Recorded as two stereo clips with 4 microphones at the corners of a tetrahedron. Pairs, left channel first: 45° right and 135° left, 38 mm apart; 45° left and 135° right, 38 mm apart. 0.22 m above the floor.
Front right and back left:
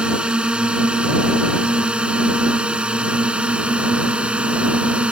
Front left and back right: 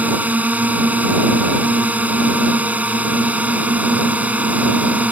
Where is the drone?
170° right; by 5.1 s 175° right.